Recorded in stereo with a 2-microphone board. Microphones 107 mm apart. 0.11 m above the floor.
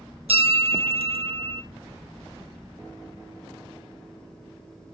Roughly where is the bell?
Right.